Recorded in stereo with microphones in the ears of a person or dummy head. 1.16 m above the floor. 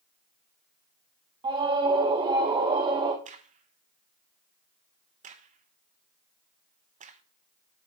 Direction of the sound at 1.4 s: 25° right (ahead or behind).